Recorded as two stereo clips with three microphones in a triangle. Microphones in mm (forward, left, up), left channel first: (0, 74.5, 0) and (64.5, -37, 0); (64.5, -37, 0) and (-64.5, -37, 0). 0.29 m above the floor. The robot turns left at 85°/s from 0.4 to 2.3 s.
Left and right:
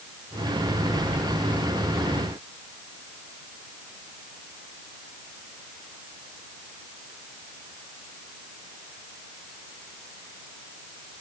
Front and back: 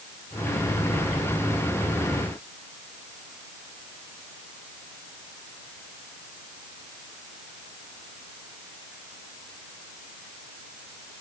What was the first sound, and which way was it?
Only background noise.